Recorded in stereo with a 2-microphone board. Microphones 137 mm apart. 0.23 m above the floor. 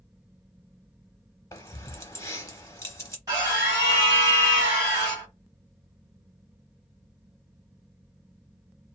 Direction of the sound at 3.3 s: 25° right (ahead or behind).